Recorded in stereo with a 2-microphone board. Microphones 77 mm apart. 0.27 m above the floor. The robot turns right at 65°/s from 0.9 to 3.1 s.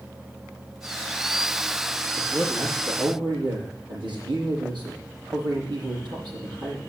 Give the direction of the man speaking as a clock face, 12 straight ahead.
5 o'clock.